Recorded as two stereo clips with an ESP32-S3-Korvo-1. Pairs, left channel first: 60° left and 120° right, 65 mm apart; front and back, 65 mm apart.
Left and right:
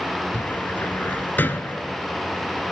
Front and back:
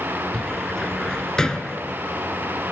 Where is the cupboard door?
70° left, 0.8 m.